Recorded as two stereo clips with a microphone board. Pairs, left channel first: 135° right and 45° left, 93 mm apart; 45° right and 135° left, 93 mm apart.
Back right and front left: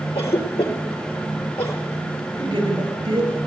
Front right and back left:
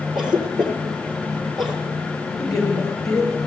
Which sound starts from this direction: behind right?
A cough, at 0.1 s.